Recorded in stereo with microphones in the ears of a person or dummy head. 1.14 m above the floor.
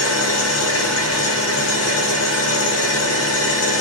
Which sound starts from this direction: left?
An engine running, at 0.0 s.